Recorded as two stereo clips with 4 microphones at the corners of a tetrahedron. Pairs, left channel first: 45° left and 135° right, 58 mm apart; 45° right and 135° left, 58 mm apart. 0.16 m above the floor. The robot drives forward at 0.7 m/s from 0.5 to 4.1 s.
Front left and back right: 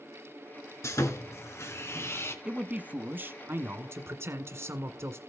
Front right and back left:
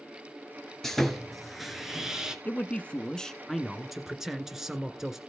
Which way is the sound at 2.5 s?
75° right.